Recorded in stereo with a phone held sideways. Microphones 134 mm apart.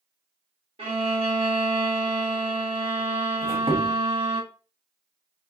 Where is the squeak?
45° right (ahead or behind), 1.0 m.